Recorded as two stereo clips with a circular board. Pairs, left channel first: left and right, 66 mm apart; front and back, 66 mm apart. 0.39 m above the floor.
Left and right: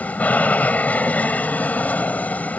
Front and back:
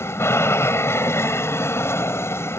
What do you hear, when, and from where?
0.0 s an aircraft: 30° left